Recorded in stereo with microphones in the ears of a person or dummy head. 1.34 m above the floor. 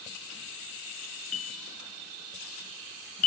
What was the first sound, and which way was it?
A bell, 85° left.